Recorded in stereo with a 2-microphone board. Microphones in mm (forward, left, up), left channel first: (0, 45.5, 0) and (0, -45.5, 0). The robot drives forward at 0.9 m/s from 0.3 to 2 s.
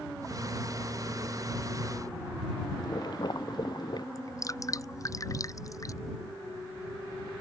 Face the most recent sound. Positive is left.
turn(degrees=35)  # may be behind; listen again after turning